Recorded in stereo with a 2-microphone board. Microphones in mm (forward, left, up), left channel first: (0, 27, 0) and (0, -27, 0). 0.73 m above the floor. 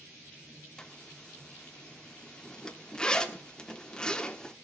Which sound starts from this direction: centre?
A zipper, at 0.8 s.